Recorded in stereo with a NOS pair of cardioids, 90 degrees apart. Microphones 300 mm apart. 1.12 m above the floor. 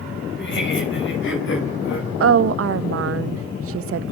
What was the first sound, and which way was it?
Laughter, 40° left.